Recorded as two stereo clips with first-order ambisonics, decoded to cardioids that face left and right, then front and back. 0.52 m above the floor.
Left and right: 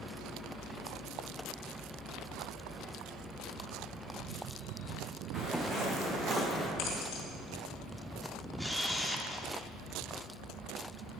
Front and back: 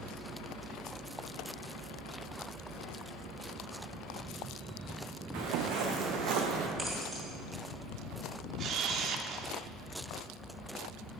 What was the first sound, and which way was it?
Footsteps, 160° right.